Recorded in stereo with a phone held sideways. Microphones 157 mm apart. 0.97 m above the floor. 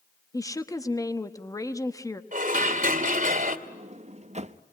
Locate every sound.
0.3 s a woman speaking: 20° left (ahead or behind), 1.2 m
2.3 s dishes clattering: 60° right (ahead or behind), 2.5 m
3.7 s a sliding door: 45° right (ahead or behind), 0.8 m